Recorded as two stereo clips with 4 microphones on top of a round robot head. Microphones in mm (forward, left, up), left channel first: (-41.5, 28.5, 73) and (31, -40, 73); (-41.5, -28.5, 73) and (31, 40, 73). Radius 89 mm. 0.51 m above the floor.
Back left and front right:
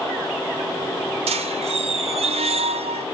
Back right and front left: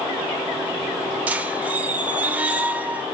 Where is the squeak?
30° right, 0.6 m.